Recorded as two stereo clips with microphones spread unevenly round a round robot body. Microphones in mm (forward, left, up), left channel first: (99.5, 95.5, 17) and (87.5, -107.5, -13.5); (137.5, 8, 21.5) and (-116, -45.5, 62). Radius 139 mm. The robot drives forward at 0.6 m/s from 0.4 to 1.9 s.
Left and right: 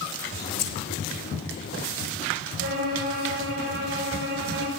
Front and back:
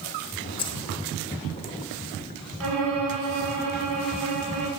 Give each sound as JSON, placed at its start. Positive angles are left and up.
{"t": 0.6, "sound": "keys jangling", "azimuth_deg": 80, "distance_m": 1.6}
{"t": 2.6, "sound": "a violin", "azimuth_deg": -150, "distance_m": 6.5}